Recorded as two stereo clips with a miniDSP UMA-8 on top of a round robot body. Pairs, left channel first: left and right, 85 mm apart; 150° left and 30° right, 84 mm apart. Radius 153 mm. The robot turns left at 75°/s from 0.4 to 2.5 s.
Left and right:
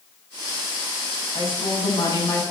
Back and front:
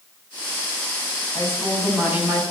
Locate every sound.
1.4 s a woman speaking: 100° left, 6 m; by 2.4 s 20° left, 6 m